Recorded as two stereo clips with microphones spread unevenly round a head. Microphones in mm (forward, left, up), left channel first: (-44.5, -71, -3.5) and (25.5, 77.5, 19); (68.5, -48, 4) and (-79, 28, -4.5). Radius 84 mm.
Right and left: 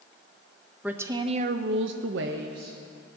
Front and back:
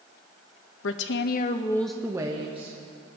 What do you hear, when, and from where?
0.8 s a woman speaking: 20° right, 0.7 m; by 2.8 s 100° left, 1.0 m